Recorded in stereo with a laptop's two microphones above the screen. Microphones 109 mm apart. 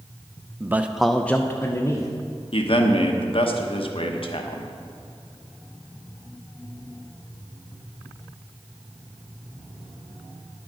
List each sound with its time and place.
0.6 s a man speaking: 20° right (ahead or behind), 0.5 m; by 2.1 s 35° left (ahead or behind), 0.8 m
2.5 s a man speaking: 60° left (ahead or behind), 1.0 m